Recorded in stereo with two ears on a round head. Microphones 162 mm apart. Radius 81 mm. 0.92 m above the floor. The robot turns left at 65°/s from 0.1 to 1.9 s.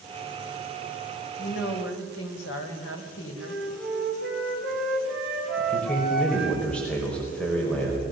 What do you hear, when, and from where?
1.4 s a woman speaking: 125° left, 4 m; by 3.6 s 90° left, 4 m
3.4 s a flute: centre (ahead or behind), 6.5 m
5.6 s a man speaking: 5° left (ahead or behind), 4.5 m